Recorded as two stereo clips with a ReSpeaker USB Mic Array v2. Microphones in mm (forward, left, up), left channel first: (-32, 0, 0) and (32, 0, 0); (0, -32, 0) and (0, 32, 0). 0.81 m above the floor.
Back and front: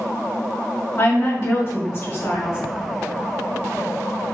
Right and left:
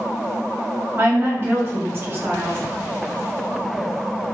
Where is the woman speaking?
135° left, 2 m.